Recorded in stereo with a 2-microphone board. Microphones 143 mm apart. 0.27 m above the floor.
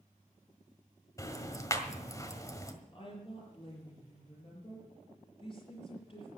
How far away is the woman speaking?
About 6.5 m.